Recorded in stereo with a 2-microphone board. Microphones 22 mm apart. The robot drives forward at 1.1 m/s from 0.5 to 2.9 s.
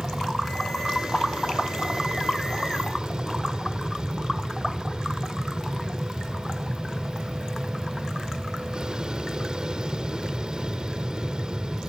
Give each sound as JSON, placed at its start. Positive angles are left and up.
{"t": 0.0, "sound": "an aircraft", "side_deg": -45}